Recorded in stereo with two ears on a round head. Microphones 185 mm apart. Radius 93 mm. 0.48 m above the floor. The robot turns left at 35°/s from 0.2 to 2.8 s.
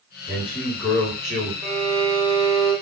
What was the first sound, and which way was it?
A man speaking, 20° left.